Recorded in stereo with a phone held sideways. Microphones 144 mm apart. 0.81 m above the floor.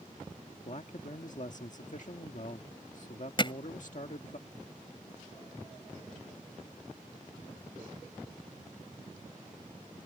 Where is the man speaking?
60° left (ahead or behind).